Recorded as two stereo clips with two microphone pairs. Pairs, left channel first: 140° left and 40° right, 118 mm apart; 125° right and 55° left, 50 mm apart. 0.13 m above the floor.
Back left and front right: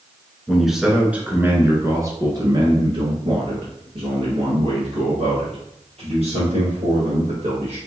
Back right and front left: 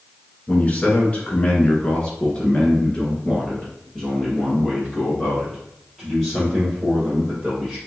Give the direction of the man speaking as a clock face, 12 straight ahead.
4 o'clock.